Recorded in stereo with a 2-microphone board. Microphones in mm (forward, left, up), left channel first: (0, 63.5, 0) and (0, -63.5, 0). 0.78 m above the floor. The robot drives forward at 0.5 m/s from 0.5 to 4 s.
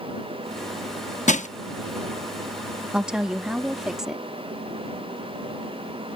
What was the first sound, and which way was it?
Crushing, 75° left (ahead or behind).